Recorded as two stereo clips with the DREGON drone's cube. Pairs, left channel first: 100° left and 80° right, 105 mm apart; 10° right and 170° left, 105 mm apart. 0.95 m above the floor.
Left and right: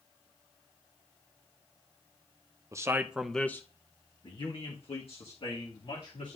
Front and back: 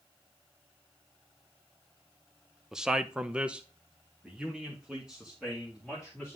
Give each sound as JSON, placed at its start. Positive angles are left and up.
{"t": 2.7, "sound": "a man speaking", "azimuth_deg": -110, "distance_m": 0.8}